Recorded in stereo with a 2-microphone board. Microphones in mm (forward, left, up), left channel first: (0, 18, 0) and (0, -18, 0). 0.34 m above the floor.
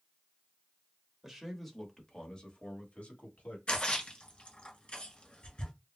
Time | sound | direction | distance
1.2 | a man speaking | 5° right (ahead or behind) | 0.9 m
3.7 | a splash | 35° left (ahead or behind) | 1.5 m